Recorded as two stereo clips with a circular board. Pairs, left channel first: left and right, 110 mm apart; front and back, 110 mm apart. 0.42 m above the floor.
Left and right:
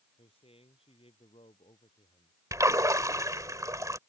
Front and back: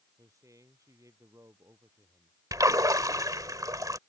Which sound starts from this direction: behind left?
A man speaking, at 0.2 s.